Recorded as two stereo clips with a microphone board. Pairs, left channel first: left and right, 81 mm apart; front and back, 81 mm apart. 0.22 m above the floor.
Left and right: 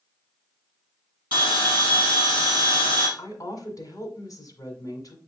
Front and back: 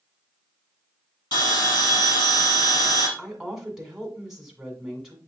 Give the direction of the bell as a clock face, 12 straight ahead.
1 o'clock.